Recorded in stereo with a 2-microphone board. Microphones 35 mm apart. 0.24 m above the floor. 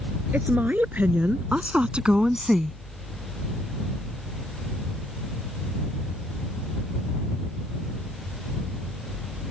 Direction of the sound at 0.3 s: 55° right (ahead or behind).